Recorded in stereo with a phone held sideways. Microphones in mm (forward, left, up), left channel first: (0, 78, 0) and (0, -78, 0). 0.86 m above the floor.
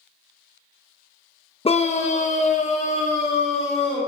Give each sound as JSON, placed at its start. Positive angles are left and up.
{"t": 1.6, "sound": "a scream", "side_deg": 40, "distance_m": 0.7}